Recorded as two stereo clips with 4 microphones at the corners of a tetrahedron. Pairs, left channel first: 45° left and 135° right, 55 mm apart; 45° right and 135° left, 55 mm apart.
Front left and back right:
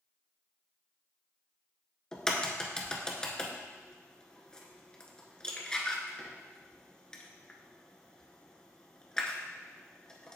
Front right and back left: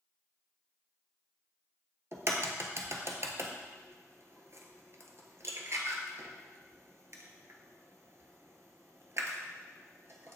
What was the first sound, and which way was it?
A crack, 120° left.